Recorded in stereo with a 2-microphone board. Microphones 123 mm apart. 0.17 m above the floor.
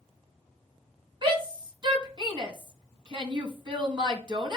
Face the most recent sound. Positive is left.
turn(degrees=-40)  # may be behind; listen again after turning